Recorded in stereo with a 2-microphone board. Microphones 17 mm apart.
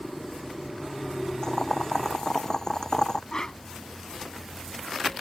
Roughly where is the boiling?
Left.